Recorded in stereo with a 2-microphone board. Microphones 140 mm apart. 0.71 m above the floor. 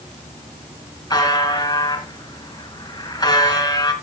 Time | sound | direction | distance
1.1 | a buzzer | 30° left (ahead or behind) | 2.5 m